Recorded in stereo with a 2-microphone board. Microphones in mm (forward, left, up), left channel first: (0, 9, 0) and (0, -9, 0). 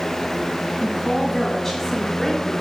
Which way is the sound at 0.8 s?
10° left (ahead or behind).